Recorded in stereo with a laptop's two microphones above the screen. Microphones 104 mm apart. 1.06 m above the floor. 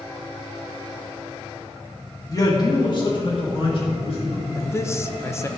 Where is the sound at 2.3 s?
30° left (ahead or behind), 1.5 m; by 4.5 s 55° left (ahead or behind), 3 m.